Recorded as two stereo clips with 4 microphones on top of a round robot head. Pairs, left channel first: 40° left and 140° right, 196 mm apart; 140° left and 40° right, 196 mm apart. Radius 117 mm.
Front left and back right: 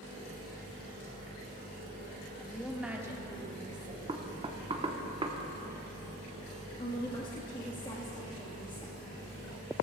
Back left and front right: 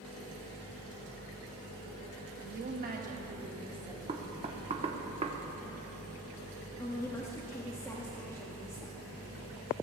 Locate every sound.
2.4 s a woman speaking: 35° right, 1.6 m; by 4.0 s 105° right, 1.9 m
4.1 s knocking: 85° right, 1.1 m
6.8 s a woman speaking: 80° left, 1.4 m